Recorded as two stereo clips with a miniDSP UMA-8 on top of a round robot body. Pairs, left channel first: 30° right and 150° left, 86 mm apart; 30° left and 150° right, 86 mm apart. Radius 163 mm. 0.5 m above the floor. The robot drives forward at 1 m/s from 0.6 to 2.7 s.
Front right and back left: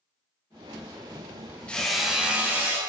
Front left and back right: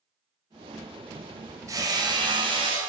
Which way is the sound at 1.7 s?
105° right.